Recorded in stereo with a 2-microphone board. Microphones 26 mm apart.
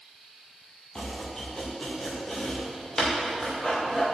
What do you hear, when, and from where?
0.9 s chopping: 15° left (ahead or behind), 4.5 m